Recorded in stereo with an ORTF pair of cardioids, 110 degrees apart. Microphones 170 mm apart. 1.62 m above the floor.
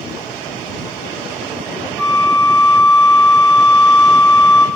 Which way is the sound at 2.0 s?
Straight ahead.